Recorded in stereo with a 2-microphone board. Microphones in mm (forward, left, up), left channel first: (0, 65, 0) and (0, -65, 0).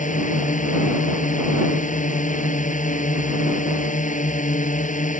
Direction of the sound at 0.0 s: 80° left.